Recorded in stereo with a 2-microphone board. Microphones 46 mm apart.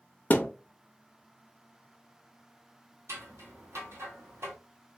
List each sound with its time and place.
0.3 s a thud: 35° left (ahead or behind), 0.7 m
3.1 s scissors: 80° right, 1.1 m